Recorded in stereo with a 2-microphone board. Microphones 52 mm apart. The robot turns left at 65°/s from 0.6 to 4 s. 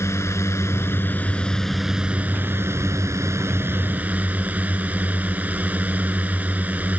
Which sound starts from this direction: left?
A drone, at 0.0 s.